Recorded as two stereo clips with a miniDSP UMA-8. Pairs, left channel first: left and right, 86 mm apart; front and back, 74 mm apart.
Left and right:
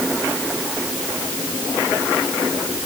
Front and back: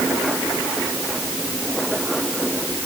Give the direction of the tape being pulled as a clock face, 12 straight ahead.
No tape being pulled in this recording.